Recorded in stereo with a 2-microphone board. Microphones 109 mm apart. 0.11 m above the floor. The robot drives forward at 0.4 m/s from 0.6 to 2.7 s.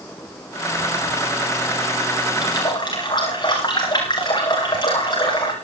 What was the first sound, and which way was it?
A running tap, 40° left (ahead or behind).